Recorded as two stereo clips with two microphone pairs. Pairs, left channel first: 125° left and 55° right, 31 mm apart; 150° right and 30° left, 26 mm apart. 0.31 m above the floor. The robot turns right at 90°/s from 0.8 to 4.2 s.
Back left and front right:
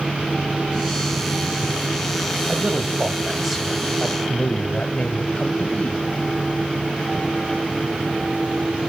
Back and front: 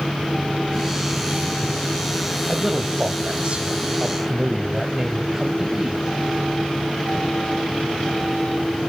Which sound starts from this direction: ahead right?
A man speaking, at 2.5 s.